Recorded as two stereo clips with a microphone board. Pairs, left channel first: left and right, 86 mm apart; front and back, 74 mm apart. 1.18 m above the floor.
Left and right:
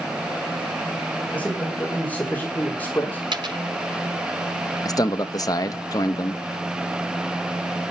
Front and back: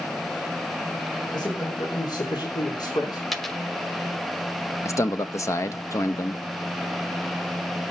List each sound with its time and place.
1.3 s a man speaking: 15° left, 5.5 m; by 3.2 s 20° left, 3 m
3.3 s a dropped coin: 90° right, 1.7 m
4.8 s a man speaking: 45° left, 1.0 m